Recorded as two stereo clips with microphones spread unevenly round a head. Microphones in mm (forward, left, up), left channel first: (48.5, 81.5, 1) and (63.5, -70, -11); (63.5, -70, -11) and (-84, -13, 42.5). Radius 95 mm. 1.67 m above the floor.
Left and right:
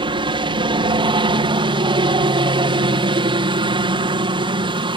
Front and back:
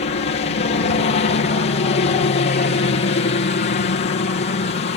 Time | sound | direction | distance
0.0 | a helicopter | 35° right | ?